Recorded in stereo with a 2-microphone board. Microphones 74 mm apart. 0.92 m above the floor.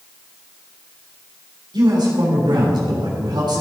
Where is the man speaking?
80° right, 3.5 m.